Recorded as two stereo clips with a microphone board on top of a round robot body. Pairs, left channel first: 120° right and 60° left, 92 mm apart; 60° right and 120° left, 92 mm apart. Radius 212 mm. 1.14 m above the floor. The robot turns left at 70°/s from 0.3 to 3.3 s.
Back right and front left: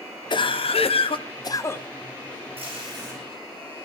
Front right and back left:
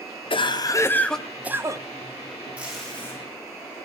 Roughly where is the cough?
Right.